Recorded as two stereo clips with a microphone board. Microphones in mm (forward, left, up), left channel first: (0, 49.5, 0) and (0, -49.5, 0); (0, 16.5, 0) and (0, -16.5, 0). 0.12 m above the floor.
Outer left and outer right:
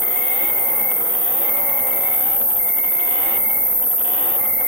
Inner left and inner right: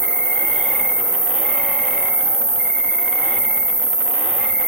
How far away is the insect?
About 1.0 m.